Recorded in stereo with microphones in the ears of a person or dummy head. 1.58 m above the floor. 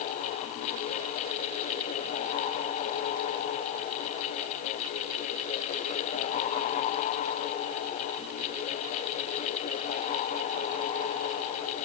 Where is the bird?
No bird in this recording.